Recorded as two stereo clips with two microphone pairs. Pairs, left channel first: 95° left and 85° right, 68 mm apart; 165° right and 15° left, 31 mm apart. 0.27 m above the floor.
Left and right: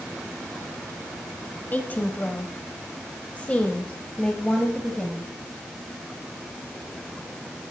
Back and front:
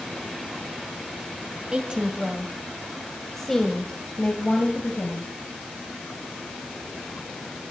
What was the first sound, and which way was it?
A woman speaking, 40° left.